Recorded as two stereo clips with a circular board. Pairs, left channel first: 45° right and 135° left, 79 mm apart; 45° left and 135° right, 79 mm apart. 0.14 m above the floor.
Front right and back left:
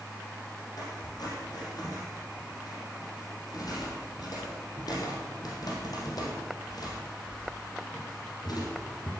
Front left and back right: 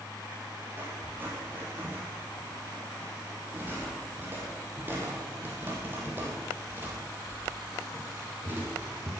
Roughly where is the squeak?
Right.